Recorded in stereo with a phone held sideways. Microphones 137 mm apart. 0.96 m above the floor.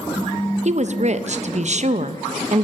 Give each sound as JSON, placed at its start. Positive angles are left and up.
{"t": 0.7, "sound": "a woman speaking", "side_deg": -55, "distance_m": 0.6}